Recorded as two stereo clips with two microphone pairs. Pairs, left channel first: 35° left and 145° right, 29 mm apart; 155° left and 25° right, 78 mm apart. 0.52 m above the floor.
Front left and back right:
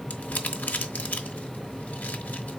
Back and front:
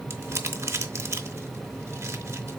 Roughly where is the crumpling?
Ahead left.